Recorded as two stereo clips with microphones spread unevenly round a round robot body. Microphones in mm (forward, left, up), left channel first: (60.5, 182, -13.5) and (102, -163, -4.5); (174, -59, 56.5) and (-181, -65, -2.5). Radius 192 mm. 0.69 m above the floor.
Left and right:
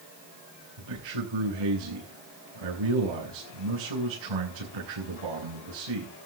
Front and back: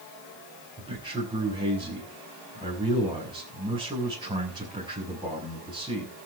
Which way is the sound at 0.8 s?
100° right.